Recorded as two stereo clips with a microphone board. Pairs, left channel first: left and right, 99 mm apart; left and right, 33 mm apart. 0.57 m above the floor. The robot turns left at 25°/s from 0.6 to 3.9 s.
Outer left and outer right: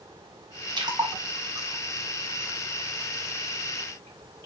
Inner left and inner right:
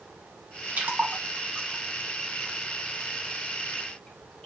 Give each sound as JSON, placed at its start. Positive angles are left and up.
{"t": 0.8, "sound": "a splash", "side_deg": -50, "distance_m": 1.0}